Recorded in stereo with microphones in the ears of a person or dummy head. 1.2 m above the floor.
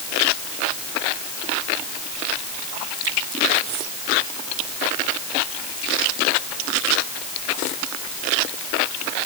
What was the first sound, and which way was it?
Only background noise.